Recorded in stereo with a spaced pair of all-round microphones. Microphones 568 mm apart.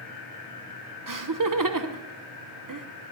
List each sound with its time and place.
1.1 s laughter: 35° right (ahead or behind), 0.8 m